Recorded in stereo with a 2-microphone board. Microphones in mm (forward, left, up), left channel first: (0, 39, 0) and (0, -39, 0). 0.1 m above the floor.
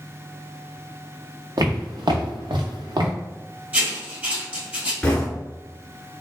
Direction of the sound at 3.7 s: 20° right (ahead or behind).